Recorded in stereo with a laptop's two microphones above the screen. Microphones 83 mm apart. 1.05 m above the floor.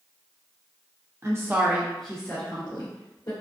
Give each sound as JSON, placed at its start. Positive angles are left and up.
{"t": 1.2, "sound": "a woman speaking", "side_deg": -35, "distance_m": 0.7}